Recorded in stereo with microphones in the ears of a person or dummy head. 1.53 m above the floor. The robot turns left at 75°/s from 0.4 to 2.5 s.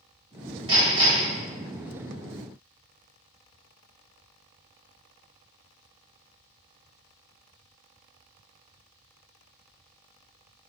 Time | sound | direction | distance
0.7 | hammering | 150° right | 1.5 m